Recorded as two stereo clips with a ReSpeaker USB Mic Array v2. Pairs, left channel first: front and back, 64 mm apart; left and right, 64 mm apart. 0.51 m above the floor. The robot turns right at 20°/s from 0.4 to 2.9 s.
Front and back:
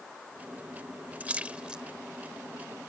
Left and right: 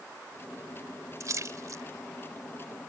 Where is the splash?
115° right; by 1.8 s 105° right.